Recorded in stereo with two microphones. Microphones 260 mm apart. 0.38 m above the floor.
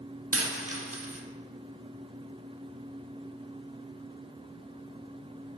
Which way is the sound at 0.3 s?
65° right (ahead or behind).